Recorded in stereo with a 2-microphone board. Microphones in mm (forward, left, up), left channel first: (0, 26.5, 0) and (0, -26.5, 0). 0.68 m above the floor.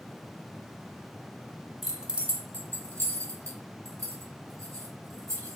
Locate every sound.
1.8 s keys jangling: 5° right (ahead or behind), 0.7 m; by 5.6 s 75° right (ahead or behind), 1.9 m